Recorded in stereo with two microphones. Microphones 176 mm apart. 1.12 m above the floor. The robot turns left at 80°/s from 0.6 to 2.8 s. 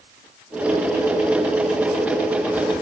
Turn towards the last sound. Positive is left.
No sound to turn to.